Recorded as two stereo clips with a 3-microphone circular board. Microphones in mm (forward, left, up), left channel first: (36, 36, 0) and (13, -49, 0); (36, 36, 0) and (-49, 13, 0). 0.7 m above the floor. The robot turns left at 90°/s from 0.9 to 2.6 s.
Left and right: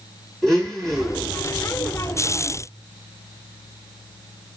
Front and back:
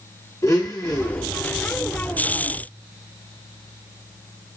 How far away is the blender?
About 1.4 m.